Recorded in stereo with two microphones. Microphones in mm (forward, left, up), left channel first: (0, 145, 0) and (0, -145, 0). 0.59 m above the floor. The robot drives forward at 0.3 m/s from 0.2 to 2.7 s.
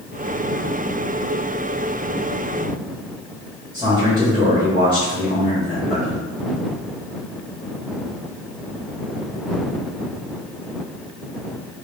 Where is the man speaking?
15° right (ahead or behind), 1.7 m.